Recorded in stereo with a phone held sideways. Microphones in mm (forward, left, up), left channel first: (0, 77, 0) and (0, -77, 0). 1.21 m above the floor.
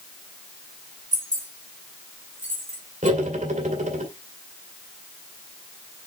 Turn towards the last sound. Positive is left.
turn(degrees=-55)  # may be behind; listen again after turning